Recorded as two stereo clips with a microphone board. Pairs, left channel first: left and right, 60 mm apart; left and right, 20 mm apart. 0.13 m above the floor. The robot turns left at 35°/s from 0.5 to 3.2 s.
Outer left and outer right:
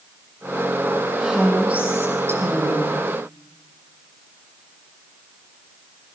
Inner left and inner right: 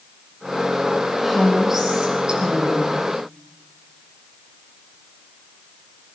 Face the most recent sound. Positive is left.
turn(degrees=-75)